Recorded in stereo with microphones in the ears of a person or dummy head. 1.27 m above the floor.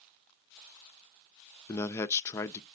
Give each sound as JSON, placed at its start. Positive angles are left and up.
{"t": 1.7, "sound": "a man speaking", "side_deg": 20, "distance_m": 0.5}